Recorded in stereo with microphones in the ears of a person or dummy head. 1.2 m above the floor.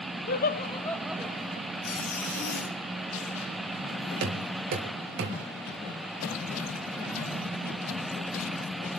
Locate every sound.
0.3 s laughter: 45° left (ahead or behind), 0.9 m; by 1.7 s 40° right (ahead or behind), 0.8 m
1.8 s a zipper: 80° left, 3.5 m
4.2 s knocking: 70° right (ahead or behind), 4 m